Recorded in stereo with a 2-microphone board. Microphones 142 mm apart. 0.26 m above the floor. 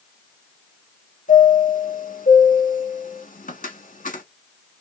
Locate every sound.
1.3 s a chime: 75° left (ahead or behind), 1.0 m